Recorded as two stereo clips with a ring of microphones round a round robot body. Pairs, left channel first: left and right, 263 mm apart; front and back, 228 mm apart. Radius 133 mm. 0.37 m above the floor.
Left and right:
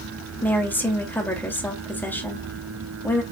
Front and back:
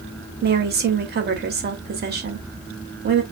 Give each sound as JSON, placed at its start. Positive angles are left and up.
{"t": 0.4, "sound": "a woman speaking", "azimuth_deg": 170, "distance_m": 1.7}